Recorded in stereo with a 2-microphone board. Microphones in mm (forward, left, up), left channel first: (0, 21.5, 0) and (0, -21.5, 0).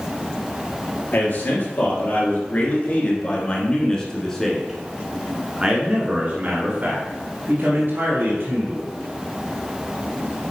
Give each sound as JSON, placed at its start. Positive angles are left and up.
{"t": 1.1, "sound": "a man speaking", "side_deg": 55, "distance_m": 2.5}